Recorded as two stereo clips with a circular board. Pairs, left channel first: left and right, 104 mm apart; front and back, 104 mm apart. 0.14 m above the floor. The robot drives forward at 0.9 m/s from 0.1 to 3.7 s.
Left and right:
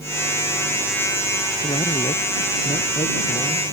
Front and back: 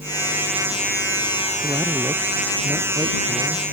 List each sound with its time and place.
1.6 s a man speaking: 110° left; by 3.7 s 120° left